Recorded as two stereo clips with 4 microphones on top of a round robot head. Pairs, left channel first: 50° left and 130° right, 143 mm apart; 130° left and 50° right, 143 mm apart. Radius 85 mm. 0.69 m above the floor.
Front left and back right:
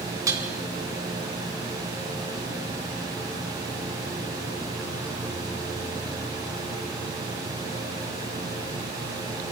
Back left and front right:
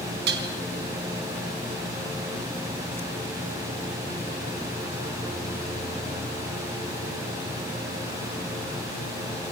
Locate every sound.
0.3 s dishes clattering: 60° right, 4.5 m